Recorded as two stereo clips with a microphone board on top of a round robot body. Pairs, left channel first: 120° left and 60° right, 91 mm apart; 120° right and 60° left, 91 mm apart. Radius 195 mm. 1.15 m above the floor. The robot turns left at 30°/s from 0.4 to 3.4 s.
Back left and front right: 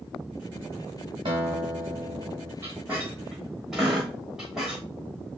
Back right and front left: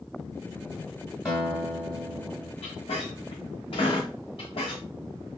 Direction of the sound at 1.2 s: 25° right.